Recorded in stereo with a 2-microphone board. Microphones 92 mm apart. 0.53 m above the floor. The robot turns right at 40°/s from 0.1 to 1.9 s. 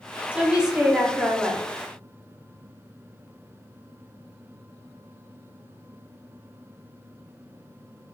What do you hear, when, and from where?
0.3 s a woman speaking: 10° right (ahead or behind), 1.1 m; by 1.6 s 10° left (ahead or behind), 1.1 m